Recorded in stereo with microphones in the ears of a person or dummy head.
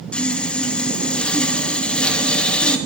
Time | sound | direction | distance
0.1 | sawing | 5° left (ahead or behind) | 2 m